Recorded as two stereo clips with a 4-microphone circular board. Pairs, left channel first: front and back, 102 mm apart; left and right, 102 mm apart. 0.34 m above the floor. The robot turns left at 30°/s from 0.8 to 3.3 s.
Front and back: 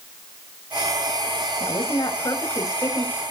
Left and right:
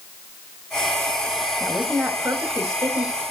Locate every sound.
1.6 s a woman speaking: 15° right, 1.5 m; by 3.2 s 60° right, 1.5 m